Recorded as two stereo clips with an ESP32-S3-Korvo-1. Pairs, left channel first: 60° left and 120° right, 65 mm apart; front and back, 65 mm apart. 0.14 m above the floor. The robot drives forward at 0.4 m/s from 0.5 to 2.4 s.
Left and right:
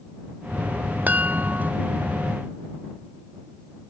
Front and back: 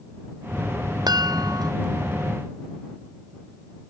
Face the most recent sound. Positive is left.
turn(degrees=175)